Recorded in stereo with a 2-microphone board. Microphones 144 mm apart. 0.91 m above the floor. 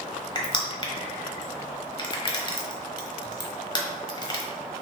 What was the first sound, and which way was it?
Crushing, 30° left (ahead or behind).